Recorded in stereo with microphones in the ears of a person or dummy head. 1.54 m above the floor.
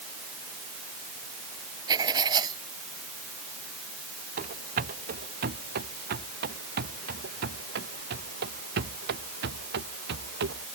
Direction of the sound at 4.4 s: 50° right (ahead or behind).